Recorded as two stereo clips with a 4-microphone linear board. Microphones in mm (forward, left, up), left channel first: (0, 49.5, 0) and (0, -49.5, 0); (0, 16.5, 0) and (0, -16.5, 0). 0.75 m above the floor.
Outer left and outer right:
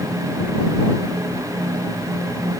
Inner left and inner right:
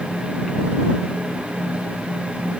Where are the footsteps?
No footsteps in this recording.